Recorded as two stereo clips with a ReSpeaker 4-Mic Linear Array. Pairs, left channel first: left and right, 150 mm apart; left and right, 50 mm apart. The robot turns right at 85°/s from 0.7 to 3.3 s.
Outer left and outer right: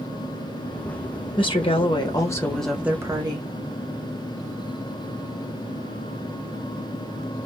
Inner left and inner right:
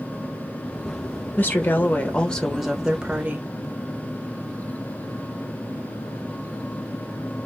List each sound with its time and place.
1.4 s a woman speaking: 65° left, 0.9 m; by 3.5 s 130° right, 0.9 m